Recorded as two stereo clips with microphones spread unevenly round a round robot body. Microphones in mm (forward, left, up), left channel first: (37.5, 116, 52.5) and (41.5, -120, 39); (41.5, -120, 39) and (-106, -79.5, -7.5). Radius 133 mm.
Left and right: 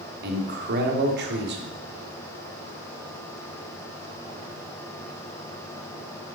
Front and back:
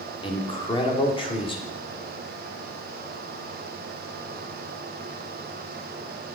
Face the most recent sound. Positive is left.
turn(degrees=-80)